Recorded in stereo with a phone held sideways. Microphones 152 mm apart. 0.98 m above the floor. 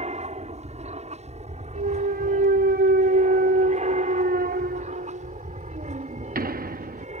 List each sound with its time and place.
0.0 s an aircraft: 45° right (ahead or behind); by 7.2 s 50° right (ahead or behind)
1.8 s a clunk: 75° right (ahead or behind)